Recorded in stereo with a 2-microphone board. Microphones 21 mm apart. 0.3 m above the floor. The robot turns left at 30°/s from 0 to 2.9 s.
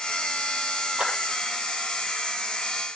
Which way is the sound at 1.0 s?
75° right (ahead or behind).